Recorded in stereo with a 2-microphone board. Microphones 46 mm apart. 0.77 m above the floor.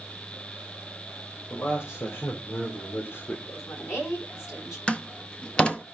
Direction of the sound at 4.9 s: 25° left (ahead or behind).